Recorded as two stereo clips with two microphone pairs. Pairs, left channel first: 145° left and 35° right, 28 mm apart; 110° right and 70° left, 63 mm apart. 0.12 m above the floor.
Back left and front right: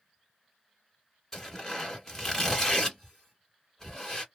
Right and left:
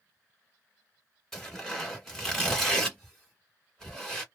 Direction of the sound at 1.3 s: 175° right.